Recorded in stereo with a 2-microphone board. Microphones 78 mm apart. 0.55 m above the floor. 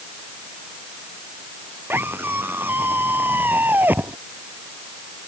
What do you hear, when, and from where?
1.9 s a scream: 30° right (ahead or behind); by 4.2 s 25° right (ahead or behind)